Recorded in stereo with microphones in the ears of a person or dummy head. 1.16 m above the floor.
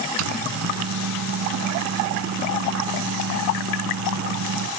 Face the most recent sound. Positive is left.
turn(degrees=-85)